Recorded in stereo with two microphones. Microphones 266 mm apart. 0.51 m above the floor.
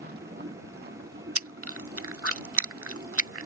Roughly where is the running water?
Right.